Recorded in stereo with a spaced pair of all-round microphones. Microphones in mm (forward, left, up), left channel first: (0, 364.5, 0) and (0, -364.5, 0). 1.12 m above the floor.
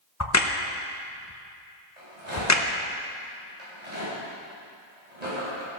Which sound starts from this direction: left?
A crack, at 0.2 s.